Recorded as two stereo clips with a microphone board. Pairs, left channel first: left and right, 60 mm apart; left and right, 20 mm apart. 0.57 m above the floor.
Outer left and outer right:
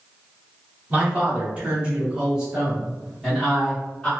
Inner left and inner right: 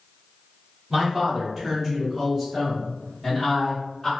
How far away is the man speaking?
About 1.4 m.